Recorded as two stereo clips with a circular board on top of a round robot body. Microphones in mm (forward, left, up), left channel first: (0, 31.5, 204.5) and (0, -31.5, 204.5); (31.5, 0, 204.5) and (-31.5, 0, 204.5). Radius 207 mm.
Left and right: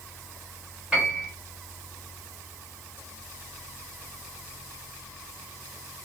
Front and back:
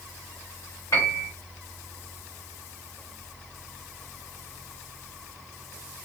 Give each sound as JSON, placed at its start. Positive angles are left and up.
{"t": 0.9, "sound": "a piano", "azimuth_deg": -15, "distance_m": 2.0}